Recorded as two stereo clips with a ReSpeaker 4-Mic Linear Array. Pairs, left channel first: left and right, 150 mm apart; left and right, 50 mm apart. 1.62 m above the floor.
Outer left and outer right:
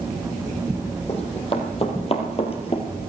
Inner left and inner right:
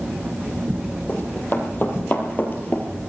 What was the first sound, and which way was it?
Running footsteps, 40° left (ahead or behind).